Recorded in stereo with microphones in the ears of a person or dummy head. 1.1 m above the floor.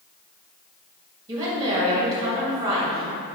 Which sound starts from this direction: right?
A woman speaking, at 1.3 s.